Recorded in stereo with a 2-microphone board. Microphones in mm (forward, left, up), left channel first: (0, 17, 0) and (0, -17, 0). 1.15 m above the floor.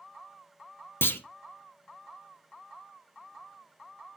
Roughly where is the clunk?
Left.